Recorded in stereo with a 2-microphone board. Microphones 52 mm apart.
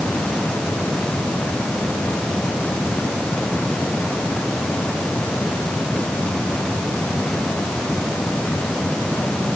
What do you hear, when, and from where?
Only background noise.